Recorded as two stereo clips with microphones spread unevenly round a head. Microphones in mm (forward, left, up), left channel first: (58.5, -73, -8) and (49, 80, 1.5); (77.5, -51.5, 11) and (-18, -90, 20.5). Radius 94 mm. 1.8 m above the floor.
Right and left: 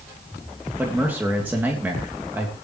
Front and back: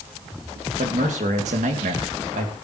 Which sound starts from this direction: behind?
A man speaking, at 0.8 s.